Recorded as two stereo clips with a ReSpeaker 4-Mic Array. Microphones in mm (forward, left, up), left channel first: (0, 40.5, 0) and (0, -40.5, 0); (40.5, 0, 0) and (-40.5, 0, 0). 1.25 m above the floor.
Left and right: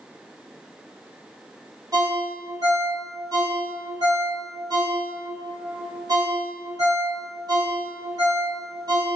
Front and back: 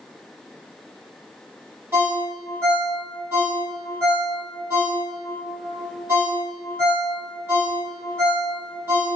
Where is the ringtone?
130° right, 1.5 m.